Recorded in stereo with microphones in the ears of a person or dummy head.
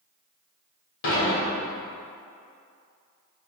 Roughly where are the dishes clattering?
Left.